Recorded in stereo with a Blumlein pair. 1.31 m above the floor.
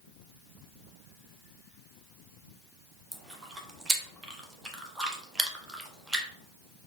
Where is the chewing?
10° right, 0.8 m.